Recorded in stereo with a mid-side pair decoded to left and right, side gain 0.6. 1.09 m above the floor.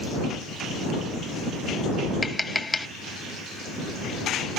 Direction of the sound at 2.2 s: 15° left.